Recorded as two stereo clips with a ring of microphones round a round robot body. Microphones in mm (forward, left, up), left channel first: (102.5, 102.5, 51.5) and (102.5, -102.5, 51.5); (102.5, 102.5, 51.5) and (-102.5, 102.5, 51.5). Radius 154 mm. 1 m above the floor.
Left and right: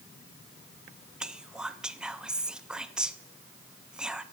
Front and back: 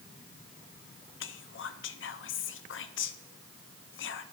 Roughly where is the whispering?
Ahead.